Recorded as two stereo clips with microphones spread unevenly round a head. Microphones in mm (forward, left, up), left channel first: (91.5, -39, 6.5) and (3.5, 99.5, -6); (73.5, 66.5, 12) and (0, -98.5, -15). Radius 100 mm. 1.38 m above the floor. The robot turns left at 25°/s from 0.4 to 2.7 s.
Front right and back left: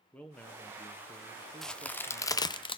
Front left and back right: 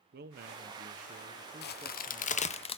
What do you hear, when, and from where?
0.1 s a man speaking: 145° right, 1.0 m; by 2.6 s 160° left, 1.0 m
1.6 s a crack: 30° left, 0.7 m; by 2.8 s 5° left, 0.7 m